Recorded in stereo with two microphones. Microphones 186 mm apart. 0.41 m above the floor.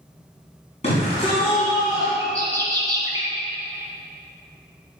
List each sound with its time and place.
0.8 s a shout: 35° left (ahead or behind), 4 m; by 2.1 s 20° left (ahead or behind), 3.5 m
2.2 s a bird: 20° right (ahead or behind), 3.5 m